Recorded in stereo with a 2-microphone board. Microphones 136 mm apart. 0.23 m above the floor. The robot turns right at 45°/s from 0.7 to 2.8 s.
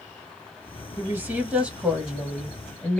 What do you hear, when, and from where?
1.0 s a woman speaking: 15° right (ahead or behind), 1.0 m; by 3.0 s 5° left (ahead or behind), 1.0 m